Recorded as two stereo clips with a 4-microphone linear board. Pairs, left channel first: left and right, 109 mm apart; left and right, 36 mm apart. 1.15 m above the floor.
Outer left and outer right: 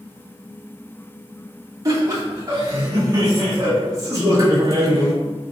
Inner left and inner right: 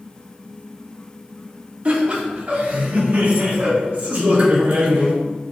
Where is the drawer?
I don't hear a drawer.